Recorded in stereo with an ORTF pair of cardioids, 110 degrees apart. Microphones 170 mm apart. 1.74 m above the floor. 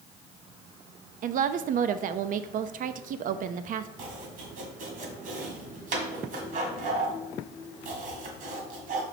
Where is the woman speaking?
55° right, 0.5 m.